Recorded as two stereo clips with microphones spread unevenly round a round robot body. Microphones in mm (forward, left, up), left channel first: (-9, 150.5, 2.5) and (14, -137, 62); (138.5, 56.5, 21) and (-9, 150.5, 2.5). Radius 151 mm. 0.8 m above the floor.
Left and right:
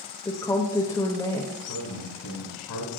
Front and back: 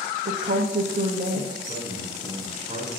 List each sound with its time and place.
0.2 s a woman speaking: 165° left, 0.7 m
1.6 s a man speaking: 105° left, 3 m